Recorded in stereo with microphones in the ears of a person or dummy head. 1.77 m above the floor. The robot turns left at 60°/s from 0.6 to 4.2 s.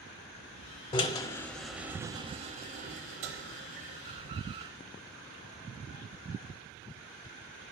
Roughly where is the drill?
Left.